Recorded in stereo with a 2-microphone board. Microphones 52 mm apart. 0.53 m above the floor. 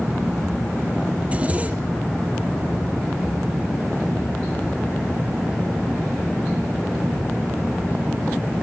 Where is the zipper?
25° right (ahead or behind), 2.5 m.